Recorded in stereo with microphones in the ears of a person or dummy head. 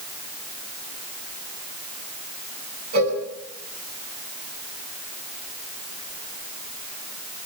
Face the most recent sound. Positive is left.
turn(degrees=-60)  # may be behind; listen again after turning